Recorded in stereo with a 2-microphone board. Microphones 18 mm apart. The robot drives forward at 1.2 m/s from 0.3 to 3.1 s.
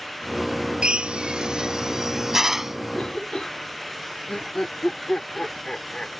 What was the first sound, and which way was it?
A drill, 75° right (ahead or behind).